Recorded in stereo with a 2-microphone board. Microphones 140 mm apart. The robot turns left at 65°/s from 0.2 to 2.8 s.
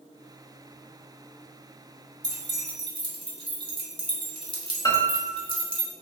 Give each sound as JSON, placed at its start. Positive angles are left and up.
{"t": 2.2, "sound": "keys jangling", "side_deg": -35, "distance_m": 1.1}
{"t": 4.8, "sound": "a piano", "side_deg": 25, "distance_m": 1.0}